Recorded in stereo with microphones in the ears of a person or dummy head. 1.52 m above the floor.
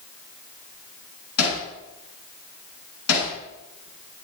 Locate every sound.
1.4 s hammering: 85° left, 8.5 m